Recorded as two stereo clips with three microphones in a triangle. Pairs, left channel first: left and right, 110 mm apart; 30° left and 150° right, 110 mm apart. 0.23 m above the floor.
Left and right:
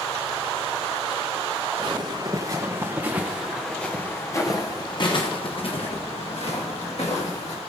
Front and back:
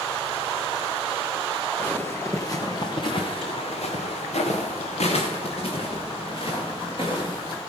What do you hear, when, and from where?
1.8 s footsteps: 40° right, 3.5 m; by 7.6 s 75° left, 5.5 m